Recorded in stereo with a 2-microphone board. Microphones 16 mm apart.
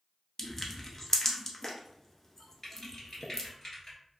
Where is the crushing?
25° left (ahead or behind), 0.6 m.